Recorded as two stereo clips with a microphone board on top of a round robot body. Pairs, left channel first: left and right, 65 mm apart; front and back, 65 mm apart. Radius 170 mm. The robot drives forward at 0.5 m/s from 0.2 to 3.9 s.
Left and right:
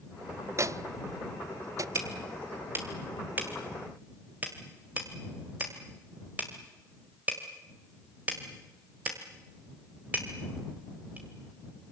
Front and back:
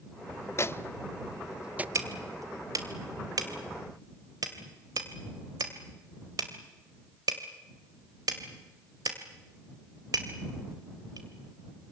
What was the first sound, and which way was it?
A microwave, 45° right.